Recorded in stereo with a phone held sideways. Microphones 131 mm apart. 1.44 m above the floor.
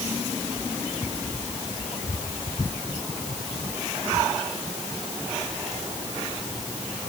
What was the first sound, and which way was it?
Only background noise.